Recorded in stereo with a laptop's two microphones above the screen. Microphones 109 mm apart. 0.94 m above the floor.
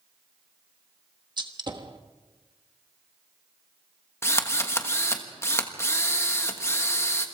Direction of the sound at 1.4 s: 45° right (ahead or behind).